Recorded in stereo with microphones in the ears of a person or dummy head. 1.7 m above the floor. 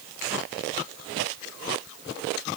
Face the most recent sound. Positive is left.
No sound to turn to.